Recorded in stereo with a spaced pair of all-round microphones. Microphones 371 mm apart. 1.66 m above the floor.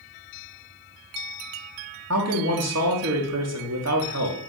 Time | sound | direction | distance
2.1 | a man speaking | 45° right (ahead or behind) | 0.8 m